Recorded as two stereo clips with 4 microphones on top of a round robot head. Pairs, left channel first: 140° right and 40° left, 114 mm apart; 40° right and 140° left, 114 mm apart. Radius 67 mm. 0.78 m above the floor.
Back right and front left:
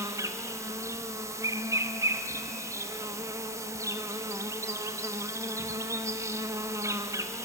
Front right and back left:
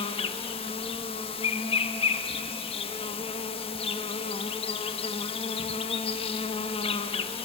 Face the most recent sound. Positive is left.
turn(degrees=-20)